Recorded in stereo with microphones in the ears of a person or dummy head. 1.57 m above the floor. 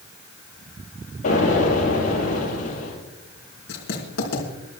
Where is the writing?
65° left (ahead or behind), 4.5 m.